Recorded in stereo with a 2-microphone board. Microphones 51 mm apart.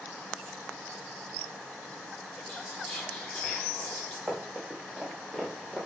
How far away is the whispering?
About 0.9 m.